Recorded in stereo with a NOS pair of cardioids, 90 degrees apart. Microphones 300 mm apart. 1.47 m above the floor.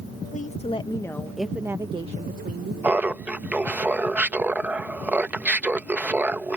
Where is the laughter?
5° right.